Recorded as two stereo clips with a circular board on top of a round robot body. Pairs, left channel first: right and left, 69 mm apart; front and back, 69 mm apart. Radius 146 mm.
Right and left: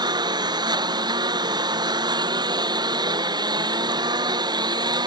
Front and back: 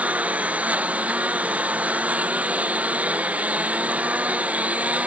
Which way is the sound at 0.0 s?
110° left.